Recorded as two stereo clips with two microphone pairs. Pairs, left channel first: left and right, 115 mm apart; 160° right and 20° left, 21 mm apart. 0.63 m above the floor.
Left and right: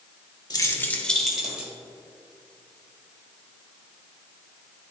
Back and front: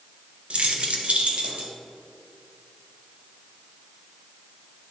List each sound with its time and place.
0.5 s keys jangling: 40° left, 0.9 m; by 1.7 s 10° right, 1.5 m